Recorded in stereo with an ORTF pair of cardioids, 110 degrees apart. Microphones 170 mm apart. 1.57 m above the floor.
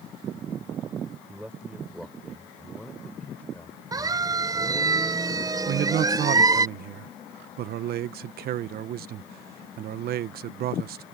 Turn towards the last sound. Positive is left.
turn(degrees=-70)